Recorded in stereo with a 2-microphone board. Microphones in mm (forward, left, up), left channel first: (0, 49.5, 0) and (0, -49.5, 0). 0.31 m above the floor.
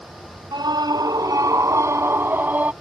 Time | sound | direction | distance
0.5 | a scream | 50° right (ahead or behind) | ?